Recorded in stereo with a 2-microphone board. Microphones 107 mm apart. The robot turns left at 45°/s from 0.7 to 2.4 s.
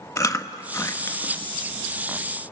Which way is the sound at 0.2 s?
30° left (ahead or behind).